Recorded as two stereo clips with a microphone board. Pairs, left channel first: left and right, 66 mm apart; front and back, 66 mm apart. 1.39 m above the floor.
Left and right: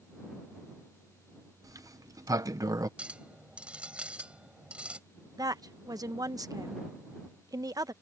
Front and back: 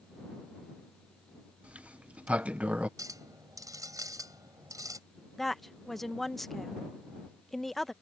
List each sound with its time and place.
1.6 s a sliding door: 110° right
3.0 s a clink: 160° right
5.4 s a woman speaking: 90° right